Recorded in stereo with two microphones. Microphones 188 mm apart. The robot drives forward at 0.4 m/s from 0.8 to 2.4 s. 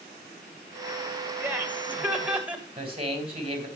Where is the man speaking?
30° right (ahead or behind), 3.5 m.